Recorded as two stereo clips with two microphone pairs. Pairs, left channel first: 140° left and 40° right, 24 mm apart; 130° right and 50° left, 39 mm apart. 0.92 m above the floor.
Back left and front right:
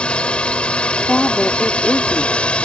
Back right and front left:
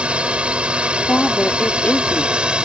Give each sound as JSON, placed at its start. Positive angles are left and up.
{"t": 0.0, "sound": "a drone", "azimuth_deg": 105}
{"t": 1.1, "sound": "a woman speaking", "azimuth_deg": 180}